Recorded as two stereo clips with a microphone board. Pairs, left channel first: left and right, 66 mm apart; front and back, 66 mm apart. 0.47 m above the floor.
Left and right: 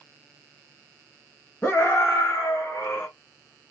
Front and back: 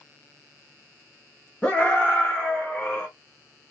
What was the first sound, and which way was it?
A scream, 60° left.